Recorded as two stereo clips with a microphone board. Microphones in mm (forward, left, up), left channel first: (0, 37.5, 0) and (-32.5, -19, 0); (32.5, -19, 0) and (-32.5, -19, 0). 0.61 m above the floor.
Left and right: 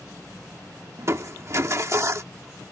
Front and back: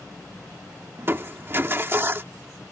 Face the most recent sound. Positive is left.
turn(degrees=-140)